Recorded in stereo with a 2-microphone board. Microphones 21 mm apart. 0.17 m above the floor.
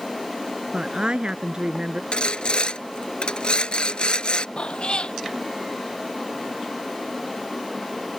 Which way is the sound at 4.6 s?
60° left (ahead or behind).